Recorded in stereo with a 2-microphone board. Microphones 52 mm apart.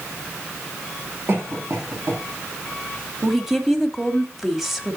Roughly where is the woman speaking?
Centre.